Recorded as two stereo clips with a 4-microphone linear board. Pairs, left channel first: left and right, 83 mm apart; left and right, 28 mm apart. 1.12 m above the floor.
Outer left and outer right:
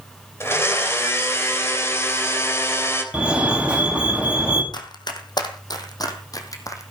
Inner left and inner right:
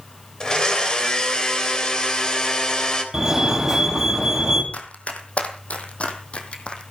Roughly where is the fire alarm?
Centre.